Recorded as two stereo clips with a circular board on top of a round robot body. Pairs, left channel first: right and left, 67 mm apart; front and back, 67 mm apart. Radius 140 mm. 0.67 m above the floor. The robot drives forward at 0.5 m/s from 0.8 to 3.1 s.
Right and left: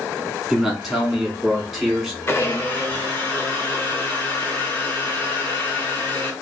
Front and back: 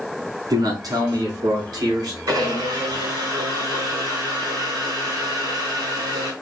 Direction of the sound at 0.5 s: Straight behind.